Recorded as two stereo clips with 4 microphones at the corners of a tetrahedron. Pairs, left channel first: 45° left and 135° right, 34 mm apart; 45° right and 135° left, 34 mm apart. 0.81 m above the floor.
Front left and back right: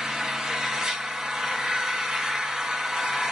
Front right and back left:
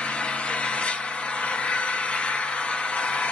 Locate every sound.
0.0 s an engine running: 65° right, 0.8 m